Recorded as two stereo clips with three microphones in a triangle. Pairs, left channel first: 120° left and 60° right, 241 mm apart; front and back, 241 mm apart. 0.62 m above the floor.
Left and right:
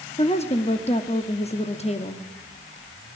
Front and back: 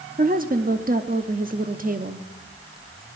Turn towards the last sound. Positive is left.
turn(degrees=165)